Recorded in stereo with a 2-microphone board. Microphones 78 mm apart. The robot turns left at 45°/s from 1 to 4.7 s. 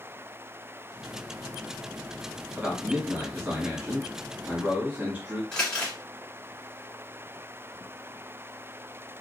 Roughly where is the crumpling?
Centre.